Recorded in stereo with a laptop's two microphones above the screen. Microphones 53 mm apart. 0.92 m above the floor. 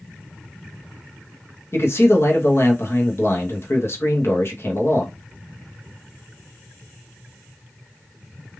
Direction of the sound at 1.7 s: 50° left (ahead or behind).